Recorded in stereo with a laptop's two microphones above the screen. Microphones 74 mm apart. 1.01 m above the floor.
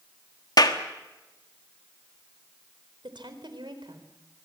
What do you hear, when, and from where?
0.6 s a clap: 60° left (ahead or behind), 1.5 m
3.0 s a woman speaking: 85° right, 3.5 m